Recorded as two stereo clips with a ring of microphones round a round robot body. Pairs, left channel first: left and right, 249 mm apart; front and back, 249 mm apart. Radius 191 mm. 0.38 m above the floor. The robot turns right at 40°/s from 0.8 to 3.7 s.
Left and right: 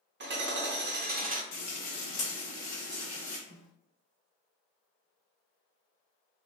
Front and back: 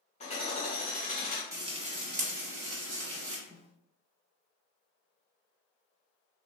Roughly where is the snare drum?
Behind.